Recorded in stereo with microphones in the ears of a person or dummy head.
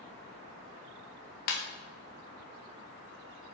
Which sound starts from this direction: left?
A ringtone, at 1.5 s.